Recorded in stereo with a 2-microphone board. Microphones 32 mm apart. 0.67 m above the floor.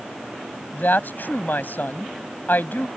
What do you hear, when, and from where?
0.7 s a woman speaking: 65° left (ahead or behind)